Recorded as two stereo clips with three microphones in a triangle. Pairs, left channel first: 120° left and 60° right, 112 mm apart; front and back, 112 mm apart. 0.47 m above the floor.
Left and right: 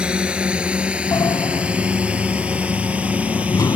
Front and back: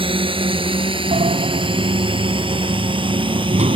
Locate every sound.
0.0 s a drone: 140° right
1.1 s a sliding door: straight behind